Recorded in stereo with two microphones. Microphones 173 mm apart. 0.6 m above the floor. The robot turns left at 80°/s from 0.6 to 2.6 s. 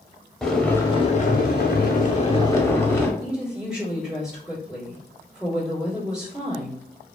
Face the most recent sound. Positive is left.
turn(degrees=-5)  # may be behind; listen again after turning